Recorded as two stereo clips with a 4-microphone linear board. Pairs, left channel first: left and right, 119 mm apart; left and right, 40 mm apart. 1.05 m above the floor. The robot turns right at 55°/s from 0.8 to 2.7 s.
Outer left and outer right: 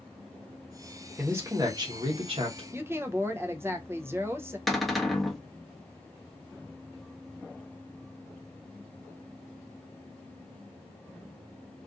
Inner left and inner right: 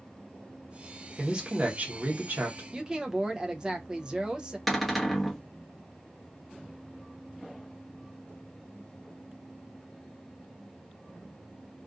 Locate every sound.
1.2 s a man speaking: 160° right, 0.9 m; by 2.6 s 80° right, 0.9 m
2.7 s a woman speaking: 20° right (ahead or behind), 0.5 m
4.7 s a cupboard door: centre (ahead or behind), 0.6 m